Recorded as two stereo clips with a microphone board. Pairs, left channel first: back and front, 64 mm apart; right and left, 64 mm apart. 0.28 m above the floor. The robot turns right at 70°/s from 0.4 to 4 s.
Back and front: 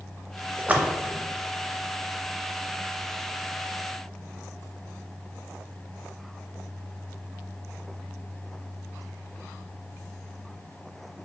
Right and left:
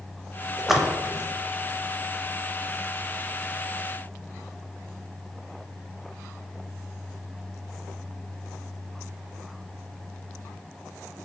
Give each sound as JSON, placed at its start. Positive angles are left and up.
{"t": 0.6, "sound": "a splash", "azimuth_deg": 5, "distance_m": 0.5}